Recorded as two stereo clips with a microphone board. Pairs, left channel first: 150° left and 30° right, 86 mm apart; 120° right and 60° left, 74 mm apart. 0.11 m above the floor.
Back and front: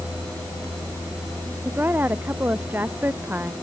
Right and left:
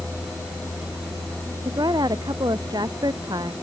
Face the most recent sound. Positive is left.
turn(degrees=40)